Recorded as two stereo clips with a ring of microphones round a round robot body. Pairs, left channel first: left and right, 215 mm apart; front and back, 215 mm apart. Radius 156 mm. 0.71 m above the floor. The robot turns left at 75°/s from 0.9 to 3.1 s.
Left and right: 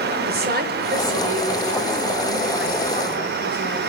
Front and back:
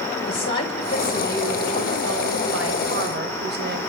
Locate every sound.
0.3 s a woman speaking: 50° right, 3.5 m; by 3.8 s 145° left, 3.5 m